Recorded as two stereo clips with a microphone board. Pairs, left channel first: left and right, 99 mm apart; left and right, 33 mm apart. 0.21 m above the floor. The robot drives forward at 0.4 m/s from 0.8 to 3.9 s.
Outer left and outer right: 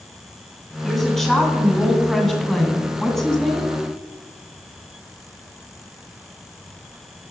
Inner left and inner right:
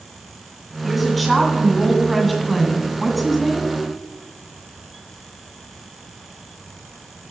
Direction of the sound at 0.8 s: 5° left (ahead or behind).